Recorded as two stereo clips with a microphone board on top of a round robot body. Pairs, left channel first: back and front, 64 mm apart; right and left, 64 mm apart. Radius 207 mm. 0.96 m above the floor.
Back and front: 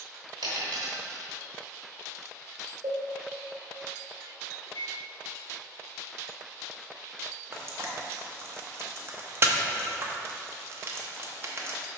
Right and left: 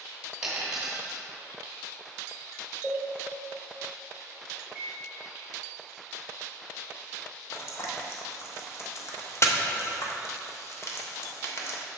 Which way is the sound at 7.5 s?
45° right.